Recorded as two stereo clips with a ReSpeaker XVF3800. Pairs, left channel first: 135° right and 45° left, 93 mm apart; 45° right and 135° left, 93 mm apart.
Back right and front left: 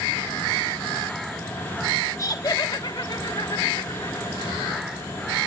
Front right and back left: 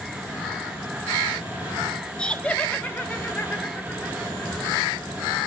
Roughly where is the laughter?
Behind right.